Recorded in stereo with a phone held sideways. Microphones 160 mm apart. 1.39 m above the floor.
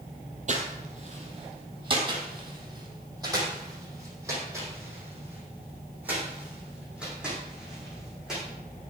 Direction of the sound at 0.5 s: 45° right (ahead or behind).